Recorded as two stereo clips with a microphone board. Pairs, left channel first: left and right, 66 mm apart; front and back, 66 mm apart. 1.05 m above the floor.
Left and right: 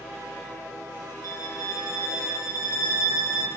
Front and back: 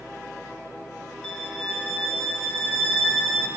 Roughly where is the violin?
Right.